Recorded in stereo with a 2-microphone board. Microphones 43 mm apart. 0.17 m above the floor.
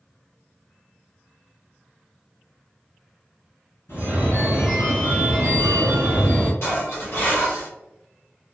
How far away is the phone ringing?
About 1.8 m.